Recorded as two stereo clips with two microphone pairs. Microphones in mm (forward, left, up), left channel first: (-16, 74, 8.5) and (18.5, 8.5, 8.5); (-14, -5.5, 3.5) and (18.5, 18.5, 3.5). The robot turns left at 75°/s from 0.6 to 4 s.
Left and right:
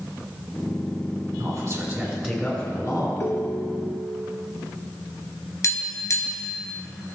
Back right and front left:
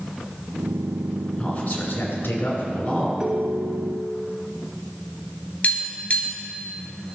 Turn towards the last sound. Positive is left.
turn(degrees=160)